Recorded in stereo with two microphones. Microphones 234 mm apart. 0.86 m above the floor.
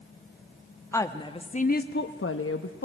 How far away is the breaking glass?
No breaking glass in this recording.